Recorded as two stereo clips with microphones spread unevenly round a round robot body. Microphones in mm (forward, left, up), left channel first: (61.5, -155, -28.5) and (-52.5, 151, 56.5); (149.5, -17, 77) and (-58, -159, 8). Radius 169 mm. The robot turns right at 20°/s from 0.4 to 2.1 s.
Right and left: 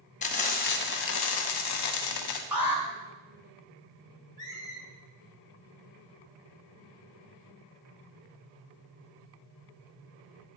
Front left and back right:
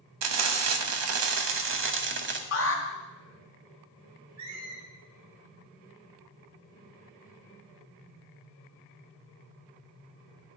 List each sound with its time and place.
0.2 s frying: 135° right, 1.1 m; by 2.4 s 100° right, 1.1 m
2.5 s an alarm: 10° left, 2 m
4.4 s a squeak: 150° right, 2.5 m